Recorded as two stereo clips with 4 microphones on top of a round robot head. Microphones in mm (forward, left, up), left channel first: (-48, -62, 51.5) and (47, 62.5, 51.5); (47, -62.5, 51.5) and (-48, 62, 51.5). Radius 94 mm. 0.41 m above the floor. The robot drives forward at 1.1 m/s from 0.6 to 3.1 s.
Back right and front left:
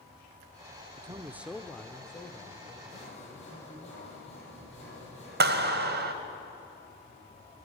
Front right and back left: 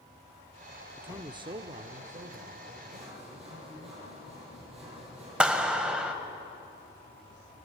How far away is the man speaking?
About 0.9 m.